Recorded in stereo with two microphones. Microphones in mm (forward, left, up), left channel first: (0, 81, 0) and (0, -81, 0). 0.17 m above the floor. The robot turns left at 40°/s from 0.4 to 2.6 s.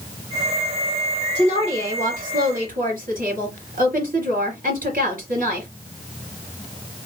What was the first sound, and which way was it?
A woman speaking, 45° right.